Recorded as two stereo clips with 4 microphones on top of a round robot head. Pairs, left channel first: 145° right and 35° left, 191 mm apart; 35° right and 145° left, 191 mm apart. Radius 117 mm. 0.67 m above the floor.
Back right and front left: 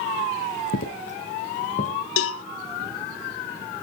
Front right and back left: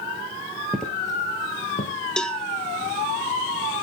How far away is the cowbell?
About 0.5 m.